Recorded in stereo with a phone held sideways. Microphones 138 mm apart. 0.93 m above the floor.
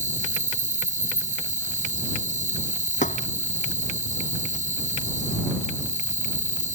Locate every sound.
0.0 s an insect: 65° right (ahead or behind)
3.0 s a thud: 60° left (ahead or behind)